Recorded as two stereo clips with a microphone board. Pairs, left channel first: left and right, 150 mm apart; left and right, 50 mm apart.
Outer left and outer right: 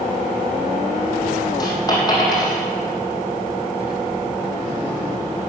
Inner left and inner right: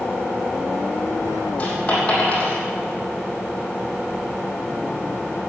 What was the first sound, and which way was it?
A dropped coin, 25° left (ahead or behind).